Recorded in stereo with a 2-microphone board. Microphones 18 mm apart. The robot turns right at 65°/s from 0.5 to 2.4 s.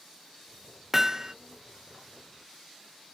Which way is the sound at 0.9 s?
15° right (ahead or behind).